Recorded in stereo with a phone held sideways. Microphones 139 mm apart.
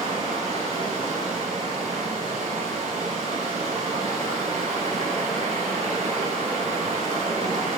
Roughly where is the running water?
Right.